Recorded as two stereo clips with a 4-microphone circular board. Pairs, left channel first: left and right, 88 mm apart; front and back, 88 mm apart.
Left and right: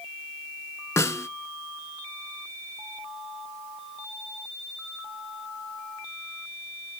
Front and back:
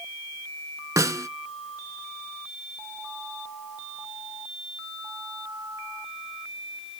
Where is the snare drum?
140° left, 0.5 m.